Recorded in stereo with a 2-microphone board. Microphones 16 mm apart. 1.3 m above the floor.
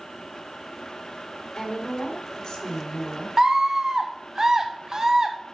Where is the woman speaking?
50° left (ahead or behind), 3.5 m.